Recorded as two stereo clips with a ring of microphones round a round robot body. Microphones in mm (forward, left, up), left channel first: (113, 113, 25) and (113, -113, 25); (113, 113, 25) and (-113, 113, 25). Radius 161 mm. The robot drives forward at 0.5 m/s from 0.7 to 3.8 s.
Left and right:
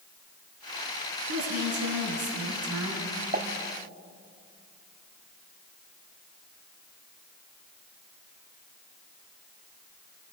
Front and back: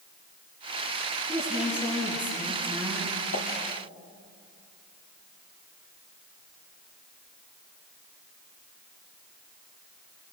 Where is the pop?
45° right, 1.7 m.